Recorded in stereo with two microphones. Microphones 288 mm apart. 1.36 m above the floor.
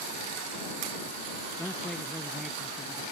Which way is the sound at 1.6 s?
5° left (ahead or behind).